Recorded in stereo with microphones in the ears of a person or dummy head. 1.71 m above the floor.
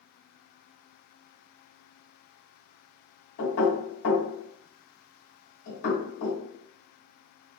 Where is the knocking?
65° left (ahead or behind), 1.7 m.